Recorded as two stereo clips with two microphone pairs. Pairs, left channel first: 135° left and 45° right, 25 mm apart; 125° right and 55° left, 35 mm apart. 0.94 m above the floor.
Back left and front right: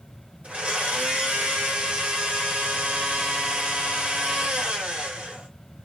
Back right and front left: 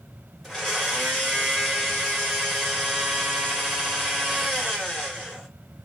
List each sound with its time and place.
0.4 s a blender: 35° right, 1.6 m